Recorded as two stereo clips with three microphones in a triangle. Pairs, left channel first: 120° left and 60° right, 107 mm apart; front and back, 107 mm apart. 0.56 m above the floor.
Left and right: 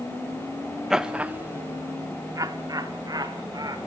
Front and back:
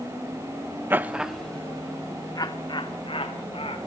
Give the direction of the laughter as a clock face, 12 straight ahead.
5 o'clock.